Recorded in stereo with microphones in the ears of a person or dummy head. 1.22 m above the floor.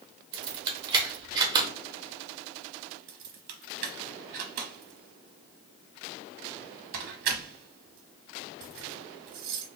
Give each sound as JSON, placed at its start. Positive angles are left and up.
{"t": 0.3, "sound": "keys jangling", "side_deg": -25, "distance_m": 0.9}
{"t": 3.1, "sound": "keys jangling", "side_deg": -50, "distance_m": 0.9}